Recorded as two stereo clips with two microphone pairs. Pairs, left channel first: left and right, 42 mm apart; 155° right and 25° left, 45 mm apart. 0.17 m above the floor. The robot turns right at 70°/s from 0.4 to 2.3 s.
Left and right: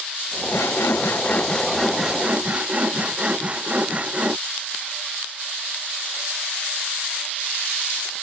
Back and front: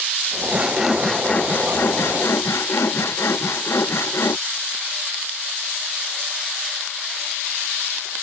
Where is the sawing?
85° left; by 4.4 s 150° right.